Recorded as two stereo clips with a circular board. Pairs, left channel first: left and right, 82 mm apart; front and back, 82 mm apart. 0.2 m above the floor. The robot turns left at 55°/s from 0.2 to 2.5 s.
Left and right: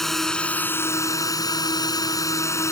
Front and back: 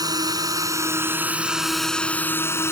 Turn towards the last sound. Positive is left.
turn(degrees=50)